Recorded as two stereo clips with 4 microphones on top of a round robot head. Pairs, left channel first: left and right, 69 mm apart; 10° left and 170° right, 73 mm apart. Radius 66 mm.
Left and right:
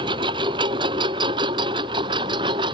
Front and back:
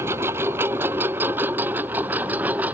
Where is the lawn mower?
105° right; by 2.7 s 100° right.